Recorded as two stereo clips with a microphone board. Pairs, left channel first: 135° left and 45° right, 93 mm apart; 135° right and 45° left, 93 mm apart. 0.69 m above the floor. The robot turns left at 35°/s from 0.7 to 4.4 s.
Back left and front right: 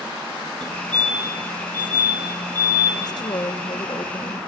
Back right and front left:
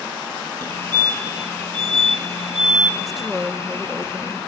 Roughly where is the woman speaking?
Behind left.